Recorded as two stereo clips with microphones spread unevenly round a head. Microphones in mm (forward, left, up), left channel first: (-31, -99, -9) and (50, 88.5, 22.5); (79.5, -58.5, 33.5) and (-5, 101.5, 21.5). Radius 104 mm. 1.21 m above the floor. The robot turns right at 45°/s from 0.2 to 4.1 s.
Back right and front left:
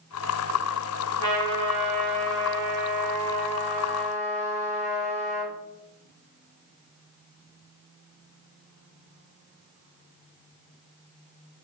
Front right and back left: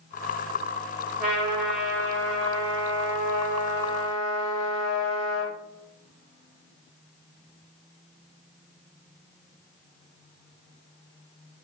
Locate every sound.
1.2 s a trumpet: 75° left, 4 m; by 5.5 s 155° right, 4 m